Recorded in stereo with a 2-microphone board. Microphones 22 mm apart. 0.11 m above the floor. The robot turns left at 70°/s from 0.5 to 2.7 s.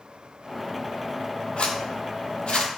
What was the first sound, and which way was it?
A zipper, 50° left (ahead or behind).